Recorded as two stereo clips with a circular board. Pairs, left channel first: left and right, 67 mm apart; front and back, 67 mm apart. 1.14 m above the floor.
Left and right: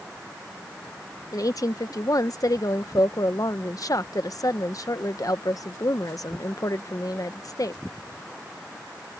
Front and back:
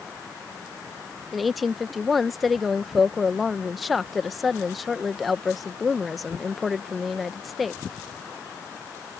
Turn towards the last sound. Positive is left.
turn(degrees=90)